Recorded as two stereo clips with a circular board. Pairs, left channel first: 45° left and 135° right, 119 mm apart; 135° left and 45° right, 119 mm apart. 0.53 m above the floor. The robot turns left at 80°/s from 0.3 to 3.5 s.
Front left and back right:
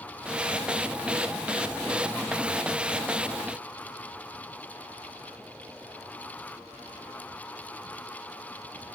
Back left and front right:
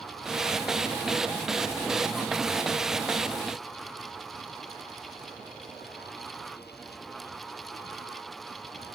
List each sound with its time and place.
Only background noise.